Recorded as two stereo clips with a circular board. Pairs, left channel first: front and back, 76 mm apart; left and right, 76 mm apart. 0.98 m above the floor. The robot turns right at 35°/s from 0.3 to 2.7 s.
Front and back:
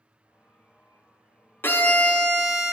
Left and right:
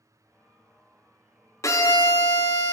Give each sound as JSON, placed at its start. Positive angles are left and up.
{"t": 1.6, "sound": "a violin", "azimuth_deg": 55, "distance_m": 0.5}